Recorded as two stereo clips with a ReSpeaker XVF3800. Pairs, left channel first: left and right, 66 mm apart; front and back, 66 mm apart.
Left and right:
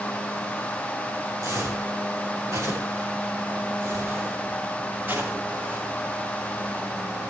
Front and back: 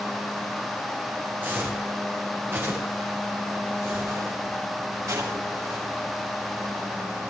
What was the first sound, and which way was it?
Footsteps, 120° right.